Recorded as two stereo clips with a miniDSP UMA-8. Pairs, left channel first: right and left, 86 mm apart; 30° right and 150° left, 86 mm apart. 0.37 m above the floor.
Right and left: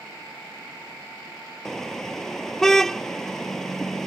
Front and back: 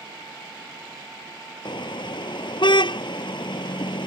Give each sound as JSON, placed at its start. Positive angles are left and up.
{"t": 1.6, "sound": "a car horn", "azimuth_deg": -5}